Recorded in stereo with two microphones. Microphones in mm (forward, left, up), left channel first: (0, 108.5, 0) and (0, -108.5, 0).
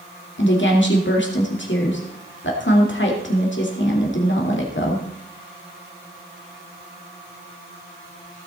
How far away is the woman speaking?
About 2.5 m.